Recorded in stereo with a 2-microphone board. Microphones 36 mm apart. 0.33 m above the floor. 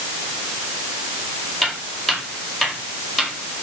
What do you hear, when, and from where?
1.6 s footsteps: 5° left (ahead or behind), 9.5 m; by 3.3 s centre (ahead or behind), 8.5 m